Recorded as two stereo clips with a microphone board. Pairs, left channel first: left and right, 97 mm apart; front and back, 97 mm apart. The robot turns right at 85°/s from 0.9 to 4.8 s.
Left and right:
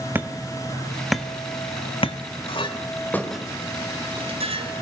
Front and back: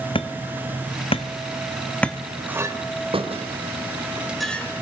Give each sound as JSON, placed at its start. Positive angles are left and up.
{"t": 0.1, "sound": "hammering", "azimuth_deg": -20, "distance_m": 1.7}
{"t": 2.5, "sound": "a clink", "azimuth_deg": 105, "distance_m": 3.0}